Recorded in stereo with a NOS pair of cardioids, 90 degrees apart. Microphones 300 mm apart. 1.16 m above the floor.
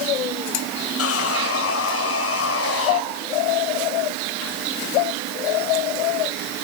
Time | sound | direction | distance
1.0 | sawing | 50° left | 4.5 m